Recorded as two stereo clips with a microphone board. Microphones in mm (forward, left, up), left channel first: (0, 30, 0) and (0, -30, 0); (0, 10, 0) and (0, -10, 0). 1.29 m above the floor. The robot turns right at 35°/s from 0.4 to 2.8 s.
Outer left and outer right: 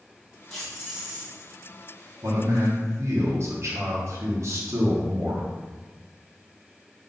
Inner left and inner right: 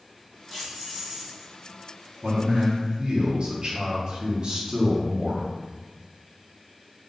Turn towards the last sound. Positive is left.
turn(degrees=-50)  # may be behind; listen again after turning